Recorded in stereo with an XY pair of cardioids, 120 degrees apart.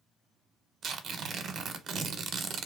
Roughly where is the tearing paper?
Ahead right.